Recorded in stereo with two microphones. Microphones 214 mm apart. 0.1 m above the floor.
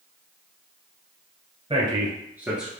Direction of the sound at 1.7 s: 25° right (ahead or behind).